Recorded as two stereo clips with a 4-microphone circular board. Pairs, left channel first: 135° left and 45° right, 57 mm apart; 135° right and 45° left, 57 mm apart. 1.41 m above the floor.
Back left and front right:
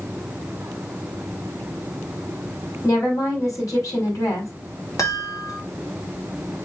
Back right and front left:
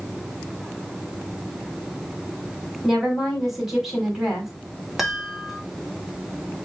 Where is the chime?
135° left, 2 m.